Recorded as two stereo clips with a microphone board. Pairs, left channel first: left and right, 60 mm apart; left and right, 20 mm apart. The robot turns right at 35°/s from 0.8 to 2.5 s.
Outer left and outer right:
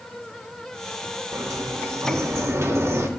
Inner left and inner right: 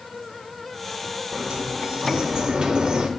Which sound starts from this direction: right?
A sliding door, at 1.3 s.